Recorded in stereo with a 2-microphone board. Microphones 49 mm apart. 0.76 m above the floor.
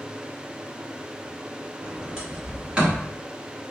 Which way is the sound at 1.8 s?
15° right (ahead or behind).